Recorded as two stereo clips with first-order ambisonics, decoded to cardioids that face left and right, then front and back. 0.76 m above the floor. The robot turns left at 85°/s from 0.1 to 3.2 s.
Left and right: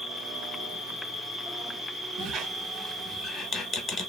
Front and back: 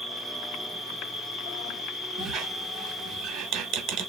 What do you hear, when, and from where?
0.0 s an insect: 145° left, 1.2 m; by 4.1 s 120° right, 1.2 m
2.2 s a squeak: 115° right, 0.6 m; by 4.1 s 160° left, 0.6 m